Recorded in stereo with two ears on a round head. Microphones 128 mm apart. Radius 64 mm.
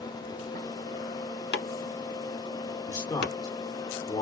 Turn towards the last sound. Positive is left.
turn(degrees=25)  # may be behind; listen again after turning